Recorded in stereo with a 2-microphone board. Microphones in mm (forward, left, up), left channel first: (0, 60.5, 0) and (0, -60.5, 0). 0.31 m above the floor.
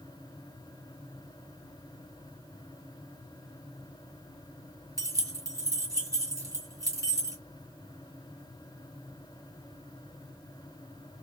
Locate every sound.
5.0 s keys jangling: 30° right (ahead or behind), 1.5 m